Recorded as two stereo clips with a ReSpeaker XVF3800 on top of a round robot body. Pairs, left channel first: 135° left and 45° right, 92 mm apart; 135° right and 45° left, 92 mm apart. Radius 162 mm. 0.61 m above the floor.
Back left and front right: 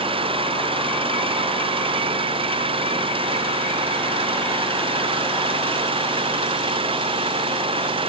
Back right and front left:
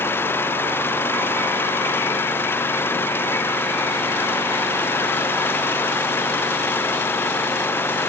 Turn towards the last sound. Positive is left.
turn(degrees=-70)